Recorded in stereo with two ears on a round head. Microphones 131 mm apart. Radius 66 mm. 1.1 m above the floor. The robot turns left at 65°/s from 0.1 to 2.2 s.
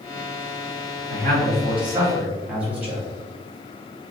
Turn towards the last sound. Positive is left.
turn(degrees=-170)